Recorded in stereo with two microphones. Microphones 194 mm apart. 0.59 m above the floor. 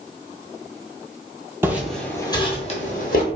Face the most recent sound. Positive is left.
turn(degrees=50)  # may be behind; listen again after turning